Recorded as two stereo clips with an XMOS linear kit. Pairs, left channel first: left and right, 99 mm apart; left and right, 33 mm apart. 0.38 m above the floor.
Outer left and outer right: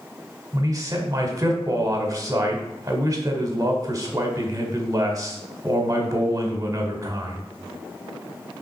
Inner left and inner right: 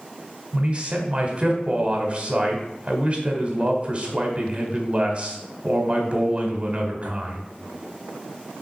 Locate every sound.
0.5 s a man speaking: 35° right (ahead or behind), 1.5 m